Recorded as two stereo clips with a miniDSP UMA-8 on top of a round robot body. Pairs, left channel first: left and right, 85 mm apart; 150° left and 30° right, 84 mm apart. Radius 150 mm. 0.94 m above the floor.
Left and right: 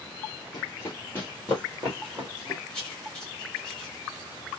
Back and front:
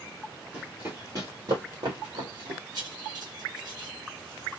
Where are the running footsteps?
40° left, 1.3 m; by 2.6 s 5° right, 1.8 m.